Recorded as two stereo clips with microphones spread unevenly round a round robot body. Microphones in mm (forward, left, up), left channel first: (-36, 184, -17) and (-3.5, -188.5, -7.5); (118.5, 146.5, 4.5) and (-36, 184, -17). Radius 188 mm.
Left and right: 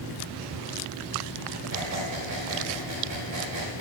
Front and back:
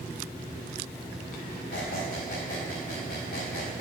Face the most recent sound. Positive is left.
turn(degrees=-45)